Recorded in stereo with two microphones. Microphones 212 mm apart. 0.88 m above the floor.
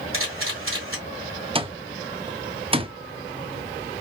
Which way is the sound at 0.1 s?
75° right (ahead or behind).